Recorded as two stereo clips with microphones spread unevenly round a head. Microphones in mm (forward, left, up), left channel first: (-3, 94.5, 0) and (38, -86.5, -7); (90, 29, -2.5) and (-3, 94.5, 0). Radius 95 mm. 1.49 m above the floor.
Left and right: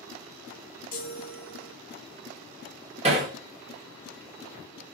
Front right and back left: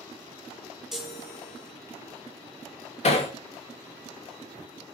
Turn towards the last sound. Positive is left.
turn(degrees=-20)